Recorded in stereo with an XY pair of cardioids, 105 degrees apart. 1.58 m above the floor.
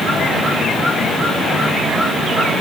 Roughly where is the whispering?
I don't hear whispering.